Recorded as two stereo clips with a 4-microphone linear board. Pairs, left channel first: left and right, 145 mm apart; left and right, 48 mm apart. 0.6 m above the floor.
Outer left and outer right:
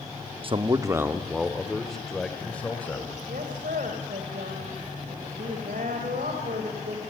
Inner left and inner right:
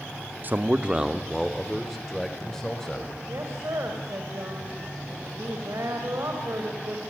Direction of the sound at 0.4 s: 40° right (ahead or behind).